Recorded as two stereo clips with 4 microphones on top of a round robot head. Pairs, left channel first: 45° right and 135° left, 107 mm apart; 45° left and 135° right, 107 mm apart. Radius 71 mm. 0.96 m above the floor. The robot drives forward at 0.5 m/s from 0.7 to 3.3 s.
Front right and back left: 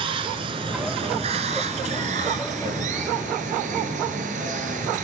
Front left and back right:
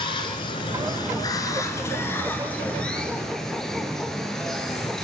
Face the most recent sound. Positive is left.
turn(degrees=130)